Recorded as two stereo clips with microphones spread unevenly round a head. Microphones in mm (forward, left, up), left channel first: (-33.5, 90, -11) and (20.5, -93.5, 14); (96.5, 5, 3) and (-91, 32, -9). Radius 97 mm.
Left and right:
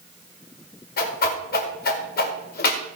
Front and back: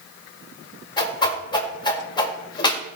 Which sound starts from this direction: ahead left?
A whoosh, at 1.0 s.